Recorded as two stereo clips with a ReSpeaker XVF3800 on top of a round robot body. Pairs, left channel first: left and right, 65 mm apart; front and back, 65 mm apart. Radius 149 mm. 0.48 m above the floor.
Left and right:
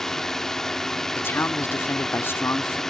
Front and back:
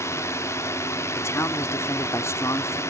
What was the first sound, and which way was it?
A drone, 10° left.